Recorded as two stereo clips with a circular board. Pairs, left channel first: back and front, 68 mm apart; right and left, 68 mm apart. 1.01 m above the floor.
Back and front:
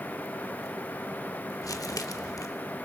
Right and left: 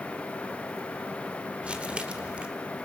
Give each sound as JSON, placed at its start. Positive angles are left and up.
{"t": 1.6, "sound": "crumpling", "azimuth_deg": 160, "distance_m": 1.2}